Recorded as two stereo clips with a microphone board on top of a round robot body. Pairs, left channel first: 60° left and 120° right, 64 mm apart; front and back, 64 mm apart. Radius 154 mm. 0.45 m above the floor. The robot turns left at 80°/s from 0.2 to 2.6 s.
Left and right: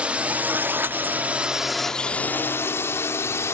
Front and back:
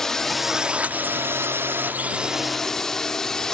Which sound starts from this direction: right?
A drone, at 0.0 s.